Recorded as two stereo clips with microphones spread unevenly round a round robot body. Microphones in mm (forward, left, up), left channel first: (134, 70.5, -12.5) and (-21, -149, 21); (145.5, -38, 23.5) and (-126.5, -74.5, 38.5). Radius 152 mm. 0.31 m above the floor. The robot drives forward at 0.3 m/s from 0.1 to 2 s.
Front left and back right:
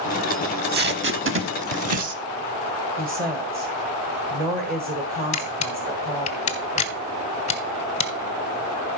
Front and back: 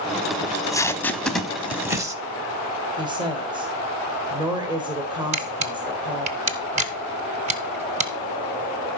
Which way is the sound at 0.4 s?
65° right.